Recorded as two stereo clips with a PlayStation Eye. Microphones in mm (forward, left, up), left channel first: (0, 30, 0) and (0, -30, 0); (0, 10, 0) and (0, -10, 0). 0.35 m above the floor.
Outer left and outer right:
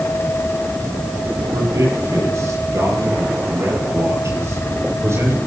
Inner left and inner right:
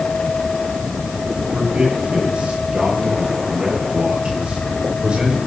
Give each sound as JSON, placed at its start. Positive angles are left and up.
{"t": 1.5, "sound": "a man speaking", "side_deg": -60, "distance_m": 9.0}